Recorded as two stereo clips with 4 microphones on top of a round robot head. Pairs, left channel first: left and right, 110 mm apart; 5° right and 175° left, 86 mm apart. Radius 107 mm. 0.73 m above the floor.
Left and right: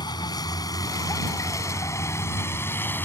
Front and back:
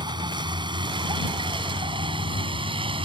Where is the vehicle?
140° left; by 3.1 s 160° left.